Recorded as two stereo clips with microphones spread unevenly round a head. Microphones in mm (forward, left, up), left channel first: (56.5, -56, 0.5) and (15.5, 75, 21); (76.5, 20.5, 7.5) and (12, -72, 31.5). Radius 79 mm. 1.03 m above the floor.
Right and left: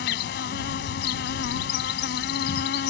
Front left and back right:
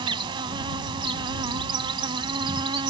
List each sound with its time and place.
0.0 s an insect: 95° right